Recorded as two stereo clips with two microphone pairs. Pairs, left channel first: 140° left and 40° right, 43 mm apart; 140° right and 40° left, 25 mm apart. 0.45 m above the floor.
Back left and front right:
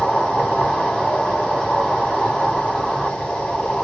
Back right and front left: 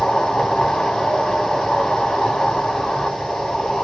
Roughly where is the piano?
No piano in this recording.